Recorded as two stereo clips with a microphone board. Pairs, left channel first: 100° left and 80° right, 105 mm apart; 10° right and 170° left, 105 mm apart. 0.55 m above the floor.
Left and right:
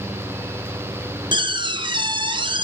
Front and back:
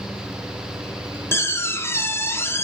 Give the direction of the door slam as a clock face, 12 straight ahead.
3 o'clock.